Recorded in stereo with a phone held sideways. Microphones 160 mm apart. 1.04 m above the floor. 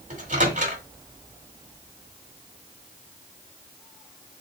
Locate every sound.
0.1 s a microwave: 55° right (ahead or behind), 1.6 m